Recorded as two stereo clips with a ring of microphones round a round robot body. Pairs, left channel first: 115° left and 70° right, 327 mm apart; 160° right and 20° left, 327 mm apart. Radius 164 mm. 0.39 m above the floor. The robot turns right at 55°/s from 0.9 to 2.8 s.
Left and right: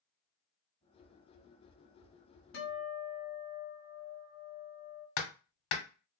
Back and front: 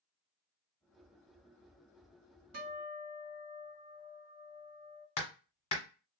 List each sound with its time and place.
2.5 s a guitar: 65° left, 1.3 m; by 5.1 s 80° left, 1.3 m
5.2 s hammering: 130° left, 1.1 m